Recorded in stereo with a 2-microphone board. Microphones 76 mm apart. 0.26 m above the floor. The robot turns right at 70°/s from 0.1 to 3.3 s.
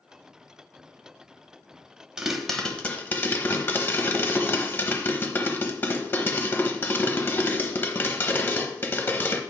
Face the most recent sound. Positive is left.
turn(degrees=65)